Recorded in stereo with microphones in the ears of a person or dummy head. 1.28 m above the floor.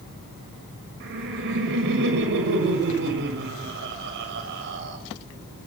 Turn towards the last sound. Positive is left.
turn(degrees=-60)  # may be behind; listen again after turning